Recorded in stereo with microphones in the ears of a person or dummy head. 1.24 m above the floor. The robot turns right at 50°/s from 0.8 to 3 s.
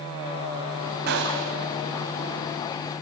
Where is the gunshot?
60° right (ahead or behind), 3 m; by 1.6 s 75° right (ahead or behind), 3 m.